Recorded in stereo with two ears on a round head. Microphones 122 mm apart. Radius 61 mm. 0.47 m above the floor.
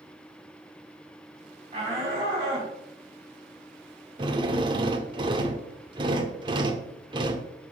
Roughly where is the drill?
Right.